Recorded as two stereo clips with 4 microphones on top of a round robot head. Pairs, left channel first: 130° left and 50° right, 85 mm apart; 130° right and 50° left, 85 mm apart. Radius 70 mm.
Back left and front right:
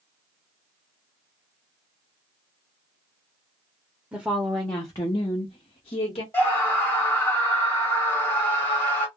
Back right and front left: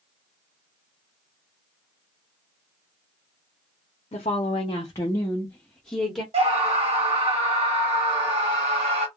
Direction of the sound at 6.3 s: 70° left.